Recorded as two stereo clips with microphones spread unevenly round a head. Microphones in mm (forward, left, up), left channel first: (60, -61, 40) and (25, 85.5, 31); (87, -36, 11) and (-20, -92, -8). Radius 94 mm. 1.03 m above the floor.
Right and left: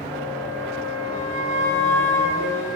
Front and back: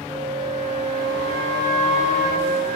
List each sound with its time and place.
0.1 s a flute: 140° left, 6.5 m